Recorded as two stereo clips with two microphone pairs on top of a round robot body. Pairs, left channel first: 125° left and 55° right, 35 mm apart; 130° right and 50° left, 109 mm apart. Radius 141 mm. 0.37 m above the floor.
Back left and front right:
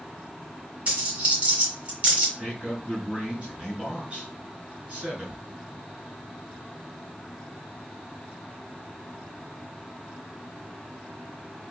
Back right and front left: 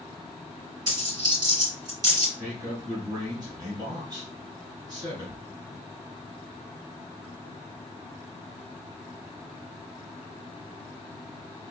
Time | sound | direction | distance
0.9 | a dropped coin | straight ahead | 2.5 m
2.4 | a man speaking | straight ahead | 3 m